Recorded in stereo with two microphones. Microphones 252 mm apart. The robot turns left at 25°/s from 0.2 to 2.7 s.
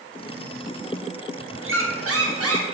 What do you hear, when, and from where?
1.6 s a squeak: 55° right (ahead or behind), 0.6 m; by 2.8 s 70° right (ahead or behind), 0.6 m